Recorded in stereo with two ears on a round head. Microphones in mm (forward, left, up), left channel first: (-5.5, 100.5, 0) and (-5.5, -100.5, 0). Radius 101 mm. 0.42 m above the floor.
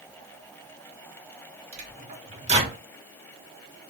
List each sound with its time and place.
1.7 s a microwave: 30° right (ahead or behind), 0.9 m